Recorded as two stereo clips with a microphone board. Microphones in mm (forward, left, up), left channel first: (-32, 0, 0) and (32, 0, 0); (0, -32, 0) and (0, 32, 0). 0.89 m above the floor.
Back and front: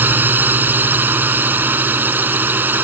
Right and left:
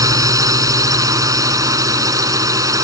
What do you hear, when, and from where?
0.0 s a drone: 60° left